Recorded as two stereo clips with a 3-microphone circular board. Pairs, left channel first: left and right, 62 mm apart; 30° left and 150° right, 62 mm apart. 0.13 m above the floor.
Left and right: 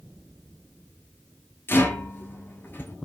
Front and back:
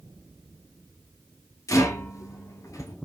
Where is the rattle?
40° left, 0.6 m.